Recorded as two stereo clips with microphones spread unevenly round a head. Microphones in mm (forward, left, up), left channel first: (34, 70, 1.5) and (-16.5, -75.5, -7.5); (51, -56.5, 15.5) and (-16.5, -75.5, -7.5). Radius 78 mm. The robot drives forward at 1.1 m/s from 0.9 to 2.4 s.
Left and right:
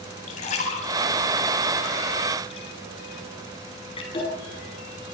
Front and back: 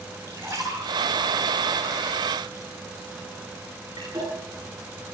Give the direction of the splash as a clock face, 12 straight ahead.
8 o'clock.